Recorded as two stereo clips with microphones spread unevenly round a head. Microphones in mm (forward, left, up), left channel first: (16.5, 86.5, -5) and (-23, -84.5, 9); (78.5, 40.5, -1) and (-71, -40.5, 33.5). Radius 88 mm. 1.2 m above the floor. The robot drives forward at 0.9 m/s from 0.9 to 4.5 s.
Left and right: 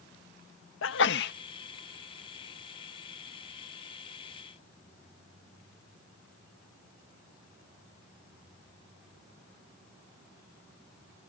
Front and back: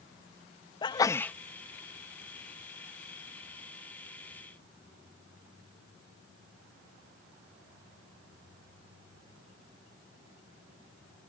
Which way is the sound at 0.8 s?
95° left.